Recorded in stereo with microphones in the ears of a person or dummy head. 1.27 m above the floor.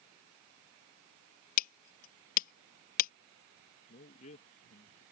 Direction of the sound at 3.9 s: 40° left (ahead or behind).